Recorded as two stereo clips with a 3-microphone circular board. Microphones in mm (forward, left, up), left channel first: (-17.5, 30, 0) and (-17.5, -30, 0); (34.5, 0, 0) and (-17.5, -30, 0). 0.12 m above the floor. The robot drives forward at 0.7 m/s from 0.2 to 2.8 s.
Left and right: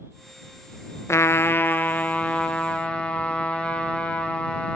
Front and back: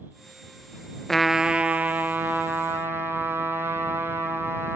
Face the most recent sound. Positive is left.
turn(degrees=160)